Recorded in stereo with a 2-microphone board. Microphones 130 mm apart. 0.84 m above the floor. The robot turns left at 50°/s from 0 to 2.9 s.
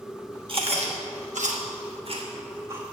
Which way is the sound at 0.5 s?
40° right (ahead or behind).